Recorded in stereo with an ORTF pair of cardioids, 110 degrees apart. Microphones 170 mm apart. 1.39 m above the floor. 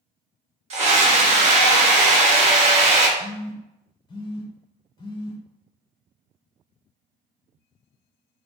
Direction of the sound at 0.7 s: 40° right.